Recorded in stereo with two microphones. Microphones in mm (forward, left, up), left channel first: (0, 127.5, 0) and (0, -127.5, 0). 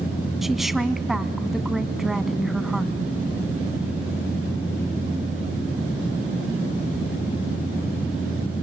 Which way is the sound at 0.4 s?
Centre (ahead or behind).